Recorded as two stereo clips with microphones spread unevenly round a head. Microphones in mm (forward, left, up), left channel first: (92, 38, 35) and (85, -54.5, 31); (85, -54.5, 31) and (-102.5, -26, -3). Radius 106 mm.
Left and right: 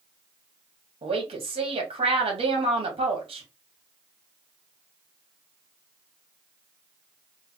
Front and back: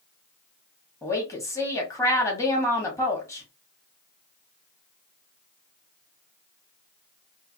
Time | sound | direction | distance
1.0 | a woman speaking | 85° right | 1.7 m